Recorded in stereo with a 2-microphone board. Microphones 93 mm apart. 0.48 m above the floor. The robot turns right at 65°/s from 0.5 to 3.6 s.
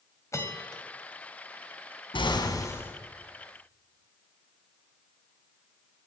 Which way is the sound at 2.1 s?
110° left.